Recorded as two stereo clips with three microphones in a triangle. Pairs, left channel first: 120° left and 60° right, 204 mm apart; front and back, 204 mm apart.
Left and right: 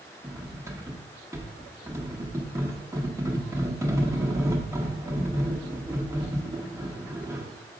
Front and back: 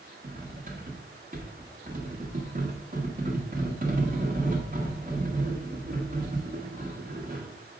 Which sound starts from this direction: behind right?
Cutlery clinking, at 0.2 s.